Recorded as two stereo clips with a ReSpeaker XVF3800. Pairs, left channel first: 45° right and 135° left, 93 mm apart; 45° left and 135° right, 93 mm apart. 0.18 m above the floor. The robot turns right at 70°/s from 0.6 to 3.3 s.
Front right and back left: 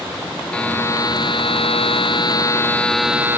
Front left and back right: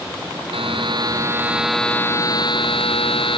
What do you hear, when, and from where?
0.5 s a buzzer: 125° right; by 3.4 s 65° left